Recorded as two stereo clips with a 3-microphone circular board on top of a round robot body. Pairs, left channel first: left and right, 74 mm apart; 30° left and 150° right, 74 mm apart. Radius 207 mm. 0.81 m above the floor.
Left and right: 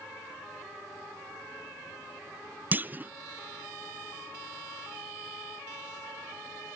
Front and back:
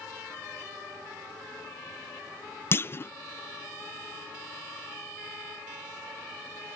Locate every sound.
2.7 s a clunk: 25° right